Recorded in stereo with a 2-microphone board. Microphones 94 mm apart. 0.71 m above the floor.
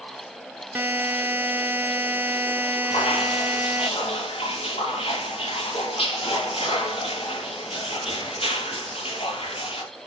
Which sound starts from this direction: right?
A buzzer, at 0.8 s.